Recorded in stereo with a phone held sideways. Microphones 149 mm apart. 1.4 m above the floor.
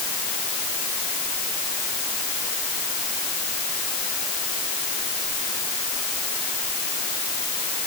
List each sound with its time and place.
Only background noise.